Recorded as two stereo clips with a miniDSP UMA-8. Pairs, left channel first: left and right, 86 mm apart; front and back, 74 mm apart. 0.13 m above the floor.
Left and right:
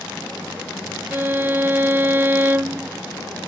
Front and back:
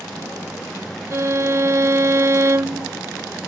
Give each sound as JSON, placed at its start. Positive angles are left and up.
{"t": 1.1, "sound": "a violin", "azimuth_deg": -145}